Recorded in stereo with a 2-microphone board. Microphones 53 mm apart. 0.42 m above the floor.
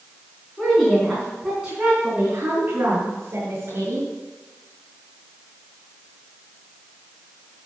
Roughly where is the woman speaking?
Centre.